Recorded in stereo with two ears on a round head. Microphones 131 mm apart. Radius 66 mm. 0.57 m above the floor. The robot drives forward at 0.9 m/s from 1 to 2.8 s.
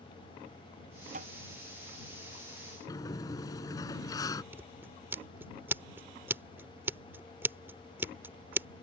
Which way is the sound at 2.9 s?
25° left (ahead or behind).